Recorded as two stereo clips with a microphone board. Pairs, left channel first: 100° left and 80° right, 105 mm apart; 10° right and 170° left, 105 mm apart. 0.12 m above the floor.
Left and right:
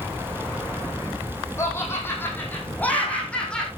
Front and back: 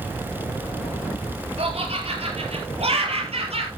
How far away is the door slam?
No door slam in this recording.